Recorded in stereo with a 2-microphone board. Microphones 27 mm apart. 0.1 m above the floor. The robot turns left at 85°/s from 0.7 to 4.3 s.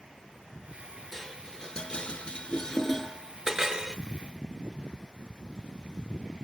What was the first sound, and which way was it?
Dishes clattering, 10° left (ahead or behind).